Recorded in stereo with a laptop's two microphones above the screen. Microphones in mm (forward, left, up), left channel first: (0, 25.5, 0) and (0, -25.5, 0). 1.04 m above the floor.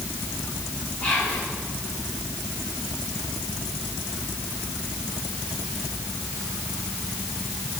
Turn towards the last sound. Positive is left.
turn(degrees=35)  # may be behind; listen again after turning